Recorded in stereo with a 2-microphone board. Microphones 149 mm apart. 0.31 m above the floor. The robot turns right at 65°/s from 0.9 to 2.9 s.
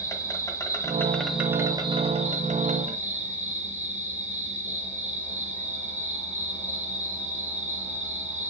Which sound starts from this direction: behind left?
An insect, at 0.0 s.